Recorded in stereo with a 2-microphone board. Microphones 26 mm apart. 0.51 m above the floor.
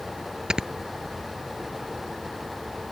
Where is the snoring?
35° right (ahead or behind).